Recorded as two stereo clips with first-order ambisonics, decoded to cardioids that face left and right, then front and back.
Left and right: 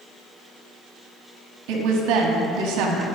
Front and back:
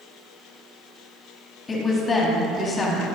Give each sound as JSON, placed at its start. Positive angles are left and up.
{"t": 1.7, "sound": "a woman speaking", "azimuth_deg": -75, "distance_m": 1.4}